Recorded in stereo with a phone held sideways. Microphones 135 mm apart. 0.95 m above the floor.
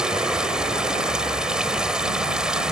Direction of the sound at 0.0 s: 5° right (ahead or behind).